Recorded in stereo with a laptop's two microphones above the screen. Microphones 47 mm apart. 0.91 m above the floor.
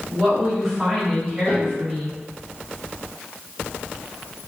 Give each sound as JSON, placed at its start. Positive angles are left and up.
{"t": 0.1, "sound": "a woman speaking", "side_deg": 0, "distance_m": 1.5}
{"t": 1.5, "sound": "a piano", "side_deg": 60, "distance_m": 1.1}